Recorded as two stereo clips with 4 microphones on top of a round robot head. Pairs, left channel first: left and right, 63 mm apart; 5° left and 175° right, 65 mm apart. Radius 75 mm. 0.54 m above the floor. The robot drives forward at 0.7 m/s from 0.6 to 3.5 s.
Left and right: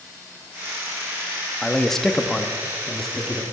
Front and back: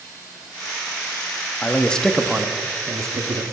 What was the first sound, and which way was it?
A man speaking, 10° left.